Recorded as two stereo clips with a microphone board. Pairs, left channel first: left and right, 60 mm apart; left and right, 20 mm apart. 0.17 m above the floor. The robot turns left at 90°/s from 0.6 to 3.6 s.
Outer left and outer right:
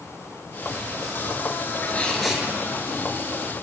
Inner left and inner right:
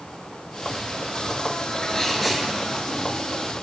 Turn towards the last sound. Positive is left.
turn(degrees=-120)